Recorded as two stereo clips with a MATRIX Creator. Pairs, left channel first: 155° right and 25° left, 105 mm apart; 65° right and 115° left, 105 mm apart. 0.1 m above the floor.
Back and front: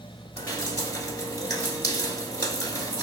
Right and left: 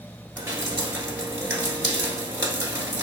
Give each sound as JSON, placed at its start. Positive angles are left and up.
{"t": 0.4, "sound": "dripping", "azimuth_deg": 170, "distance_m": 1.5}